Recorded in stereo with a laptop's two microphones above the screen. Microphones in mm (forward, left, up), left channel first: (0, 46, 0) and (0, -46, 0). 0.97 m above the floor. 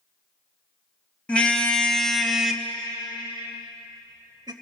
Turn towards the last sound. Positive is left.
turn(degrees=-50)  # may be behind; listen again after turning